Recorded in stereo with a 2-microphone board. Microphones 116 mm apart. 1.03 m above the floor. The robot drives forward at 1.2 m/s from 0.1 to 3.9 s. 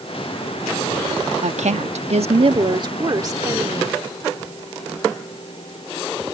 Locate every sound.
1.4 s a woman speaking: 75° right (ahead or behind); by 4.0 s 25° right (ahead or behind)